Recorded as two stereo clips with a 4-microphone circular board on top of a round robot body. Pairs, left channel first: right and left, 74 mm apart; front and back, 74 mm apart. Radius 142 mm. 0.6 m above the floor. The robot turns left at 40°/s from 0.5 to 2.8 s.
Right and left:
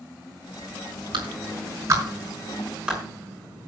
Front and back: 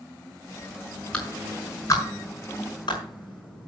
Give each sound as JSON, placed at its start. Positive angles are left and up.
{"t": 1.1, "sound": "a clap", "azimuth_deg": 80, "distance_m": 5.5}